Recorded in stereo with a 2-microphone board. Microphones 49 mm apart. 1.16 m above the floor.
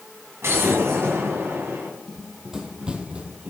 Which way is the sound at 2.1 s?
5° right (ahead or behind).